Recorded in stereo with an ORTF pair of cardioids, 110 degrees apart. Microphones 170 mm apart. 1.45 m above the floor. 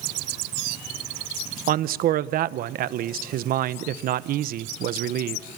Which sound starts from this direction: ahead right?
A man speaking, at 1.7 s.